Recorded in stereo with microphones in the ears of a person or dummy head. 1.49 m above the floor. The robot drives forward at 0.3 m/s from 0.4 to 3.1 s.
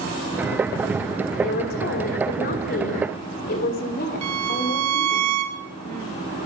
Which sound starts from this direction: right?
A violin, at 4.2 s.